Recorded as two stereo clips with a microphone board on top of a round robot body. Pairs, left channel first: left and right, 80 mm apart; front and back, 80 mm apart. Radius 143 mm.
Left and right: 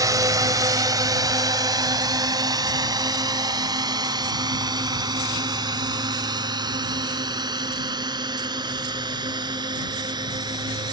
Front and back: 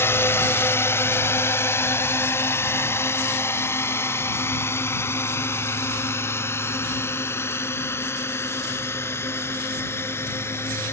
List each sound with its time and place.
0.0 s a drone: 55° right; by 10.9 s 60° right